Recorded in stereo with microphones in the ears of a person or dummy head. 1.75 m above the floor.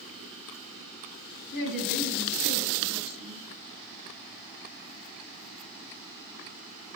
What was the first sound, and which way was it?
A woman speaking, 75° left (ahead or behind).